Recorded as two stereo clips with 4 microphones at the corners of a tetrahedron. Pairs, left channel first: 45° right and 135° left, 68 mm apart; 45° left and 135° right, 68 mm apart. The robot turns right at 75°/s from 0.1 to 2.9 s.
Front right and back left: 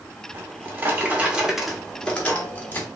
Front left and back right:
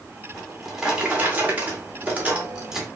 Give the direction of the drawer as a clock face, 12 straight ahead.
8 o'clock.